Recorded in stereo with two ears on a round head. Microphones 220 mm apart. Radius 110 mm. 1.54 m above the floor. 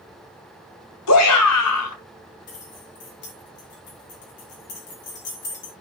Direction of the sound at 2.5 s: 45° left (ahead or behind).